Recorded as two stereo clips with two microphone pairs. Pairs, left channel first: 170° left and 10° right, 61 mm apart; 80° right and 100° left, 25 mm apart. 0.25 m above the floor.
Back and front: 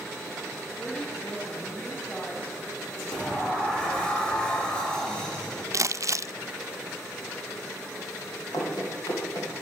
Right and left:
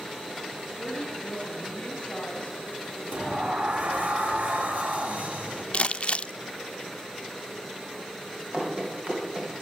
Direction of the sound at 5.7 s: 40° right.